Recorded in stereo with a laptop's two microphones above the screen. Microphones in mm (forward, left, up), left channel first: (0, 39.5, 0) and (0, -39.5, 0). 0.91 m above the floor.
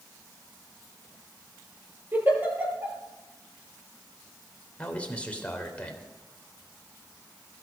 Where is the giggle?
25° right (ahead or behind), 7.5 m.